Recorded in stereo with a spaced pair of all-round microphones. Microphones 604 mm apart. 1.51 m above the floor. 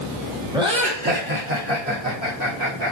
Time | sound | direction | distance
0.5 | laughter | 5° right (ahead or behind) | 3.5 m